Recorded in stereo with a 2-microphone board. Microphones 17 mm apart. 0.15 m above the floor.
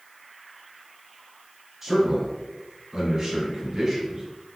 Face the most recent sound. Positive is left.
turn(degrees=-30)  # may be behind; listen again after turning